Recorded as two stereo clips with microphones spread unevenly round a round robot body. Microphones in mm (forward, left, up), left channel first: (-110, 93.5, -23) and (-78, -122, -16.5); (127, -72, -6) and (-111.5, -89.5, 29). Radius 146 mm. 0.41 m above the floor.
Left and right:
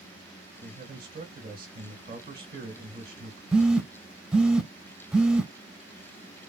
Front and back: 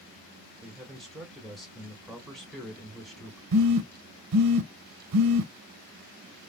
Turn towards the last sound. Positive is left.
turn(degrees=-170)